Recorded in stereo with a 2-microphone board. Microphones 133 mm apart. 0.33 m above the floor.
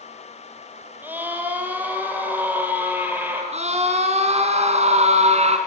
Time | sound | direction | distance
1.0 | a scream | 15° right (ahead or behind) | 9 m
3.5 | a scream | 55° right (ahead or behind) | 3 m